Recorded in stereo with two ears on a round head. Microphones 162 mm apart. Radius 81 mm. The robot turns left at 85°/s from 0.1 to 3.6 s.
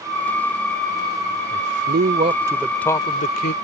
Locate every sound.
1.5 s a man speaking: 80° right; by 3.5 s 110° left